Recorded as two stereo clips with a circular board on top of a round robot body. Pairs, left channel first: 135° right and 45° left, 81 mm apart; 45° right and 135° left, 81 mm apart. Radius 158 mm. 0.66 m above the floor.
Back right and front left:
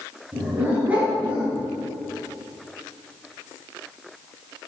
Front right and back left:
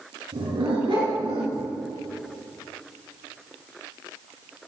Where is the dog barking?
120° left, 5 m; by 1.7 s 115° left, 4 m.